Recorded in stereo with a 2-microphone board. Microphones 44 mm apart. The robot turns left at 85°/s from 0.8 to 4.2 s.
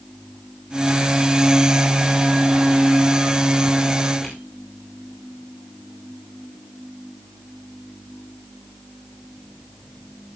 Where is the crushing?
10° left (ahead or behind), 8.5 m.